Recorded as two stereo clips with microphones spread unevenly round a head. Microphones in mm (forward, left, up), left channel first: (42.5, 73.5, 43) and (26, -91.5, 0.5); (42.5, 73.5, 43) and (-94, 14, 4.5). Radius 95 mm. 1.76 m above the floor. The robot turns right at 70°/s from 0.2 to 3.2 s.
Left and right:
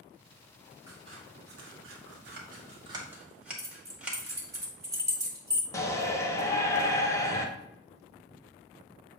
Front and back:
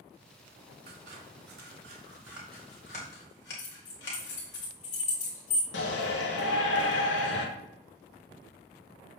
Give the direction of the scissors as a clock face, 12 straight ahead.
6 o'clock.